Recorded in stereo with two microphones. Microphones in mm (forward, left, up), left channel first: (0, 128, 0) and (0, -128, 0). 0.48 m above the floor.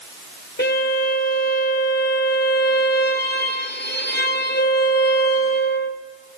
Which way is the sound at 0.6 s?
40° left (ahead or behind).